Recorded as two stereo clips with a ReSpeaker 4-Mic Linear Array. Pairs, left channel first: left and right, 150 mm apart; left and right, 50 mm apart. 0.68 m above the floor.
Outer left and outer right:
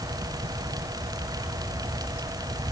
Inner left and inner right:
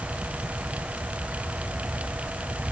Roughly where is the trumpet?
I don't hear a trumpet.